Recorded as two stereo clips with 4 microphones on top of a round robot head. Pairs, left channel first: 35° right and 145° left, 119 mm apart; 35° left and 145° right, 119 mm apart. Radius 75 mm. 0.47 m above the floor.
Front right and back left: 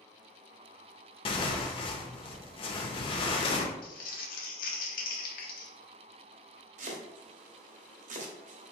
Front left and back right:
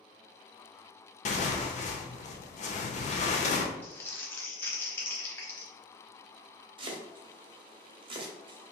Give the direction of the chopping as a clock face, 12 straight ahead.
7 o'clock.